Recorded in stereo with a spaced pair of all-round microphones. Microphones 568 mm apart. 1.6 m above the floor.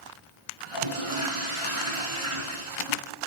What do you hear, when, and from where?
0.6 s a toilet flushing: 65° right (ahead or behind), 3.5 m